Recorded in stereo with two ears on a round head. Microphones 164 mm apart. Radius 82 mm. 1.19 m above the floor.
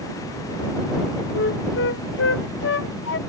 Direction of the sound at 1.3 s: 70° left (ahead or behind).